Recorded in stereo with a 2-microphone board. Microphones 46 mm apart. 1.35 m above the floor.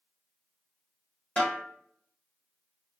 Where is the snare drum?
35° left (ahead or behind), 1.6 m.